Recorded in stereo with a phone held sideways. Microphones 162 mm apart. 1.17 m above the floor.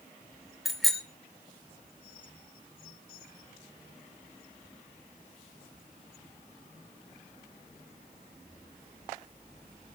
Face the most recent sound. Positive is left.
turn(degrees=0)  # may be behind; listen again after turning